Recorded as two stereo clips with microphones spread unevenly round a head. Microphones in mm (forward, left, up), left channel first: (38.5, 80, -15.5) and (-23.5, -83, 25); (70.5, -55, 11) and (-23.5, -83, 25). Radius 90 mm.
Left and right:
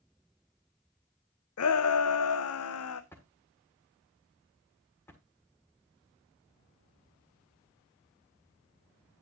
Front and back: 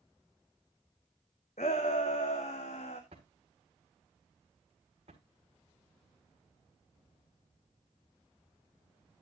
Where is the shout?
70° left, 0.6 m.